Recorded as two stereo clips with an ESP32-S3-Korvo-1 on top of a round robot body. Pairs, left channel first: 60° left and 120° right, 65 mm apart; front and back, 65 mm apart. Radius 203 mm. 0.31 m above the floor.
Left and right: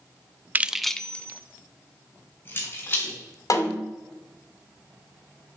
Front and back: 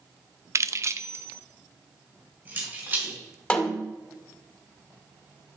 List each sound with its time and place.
0.6 s keys jangling: 170° right, 0.7 m; by 3.1 s 115° left, 3.5 m
3.5 s a snare drum: 70° left, 2.5 m